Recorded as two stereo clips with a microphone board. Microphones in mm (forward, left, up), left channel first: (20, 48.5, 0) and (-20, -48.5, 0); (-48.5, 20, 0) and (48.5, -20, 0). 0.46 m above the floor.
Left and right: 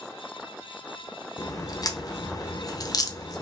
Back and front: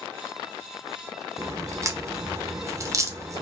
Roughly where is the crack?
Ahead left.